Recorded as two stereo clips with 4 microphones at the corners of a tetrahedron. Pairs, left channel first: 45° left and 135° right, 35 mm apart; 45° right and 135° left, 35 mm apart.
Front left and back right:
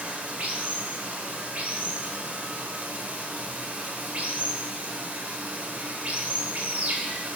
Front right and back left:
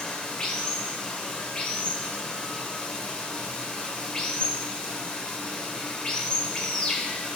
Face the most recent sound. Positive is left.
turn(degrees=-115)